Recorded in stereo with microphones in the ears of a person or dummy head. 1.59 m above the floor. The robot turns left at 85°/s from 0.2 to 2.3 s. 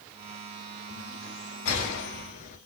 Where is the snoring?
I don't hear snoring.